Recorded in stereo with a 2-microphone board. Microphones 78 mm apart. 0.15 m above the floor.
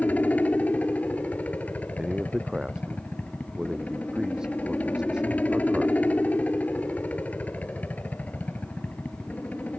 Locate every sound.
0.0 s a helicopter: 20° left (ahead or behind)
2.0 s a man speaking: 10° right (ahead or behind)